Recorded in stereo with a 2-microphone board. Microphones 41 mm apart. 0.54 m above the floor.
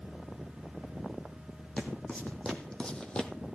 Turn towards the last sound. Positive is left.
turn(degrees=15)  # may be behind; listen again after turning